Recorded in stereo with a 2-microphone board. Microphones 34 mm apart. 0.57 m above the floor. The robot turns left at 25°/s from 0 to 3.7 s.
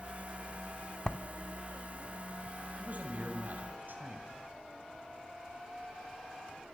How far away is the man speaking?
About 3.5 m.